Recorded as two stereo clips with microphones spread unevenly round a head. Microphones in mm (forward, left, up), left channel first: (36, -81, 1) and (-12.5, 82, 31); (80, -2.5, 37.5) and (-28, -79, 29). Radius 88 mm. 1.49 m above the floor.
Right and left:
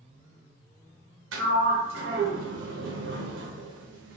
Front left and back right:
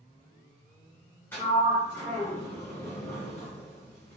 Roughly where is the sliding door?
Left.